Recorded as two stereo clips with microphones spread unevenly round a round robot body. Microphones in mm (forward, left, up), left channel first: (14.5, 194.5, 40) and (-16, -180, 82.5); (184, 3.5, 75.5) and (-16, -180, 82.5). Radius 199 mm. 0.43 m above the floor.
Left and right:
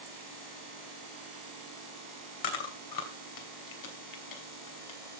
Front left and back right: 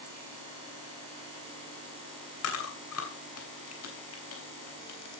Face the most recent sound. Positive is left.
turn(degrees=65)